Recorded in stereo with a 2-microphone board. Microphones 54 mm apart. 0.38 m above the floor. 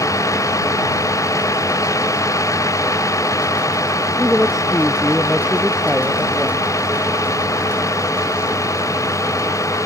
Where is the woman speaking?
5° right (ahead or behind).